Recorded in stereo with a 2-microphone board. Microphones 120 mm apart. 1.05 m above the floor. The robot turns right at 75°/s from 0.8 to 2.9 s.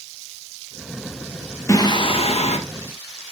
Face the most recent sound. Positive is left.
turn(degrees=120)